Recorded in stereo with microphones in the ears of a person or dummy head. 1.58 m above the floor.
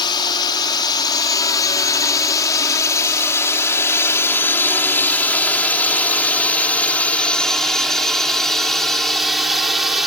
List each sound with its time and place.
0.0 s a drone: 20° left (ahead or behind); by 10.1 s 5° right (ahead or behind)